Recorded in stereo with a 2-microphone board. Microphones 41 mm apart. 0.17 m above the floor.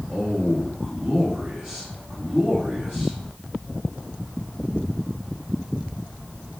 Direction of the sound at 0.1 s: 10° right (ahead or behind).